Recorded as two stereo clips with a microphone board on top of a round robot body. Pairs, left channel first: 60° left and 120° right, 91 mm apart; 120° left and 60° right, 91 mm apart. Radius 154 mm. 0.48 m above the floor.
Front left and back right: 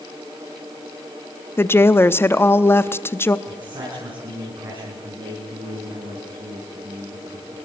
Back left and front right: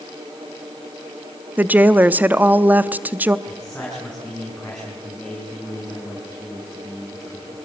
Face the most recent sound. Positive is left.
turn(degrees=-155)